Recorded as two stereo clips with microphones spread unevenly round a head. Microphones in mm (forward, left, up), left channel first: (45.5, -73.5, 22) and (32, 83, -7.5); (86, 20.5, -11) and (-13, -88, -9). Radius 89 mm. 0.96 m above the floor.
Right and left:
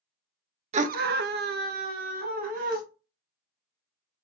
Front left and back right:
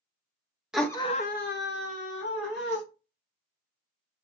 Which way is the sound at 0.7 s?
140° left.